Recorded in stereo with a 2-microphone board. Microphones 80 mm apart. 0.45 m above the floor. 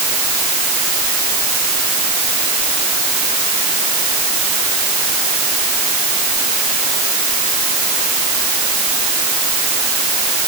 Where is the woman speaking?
I don't hear a woman speaking.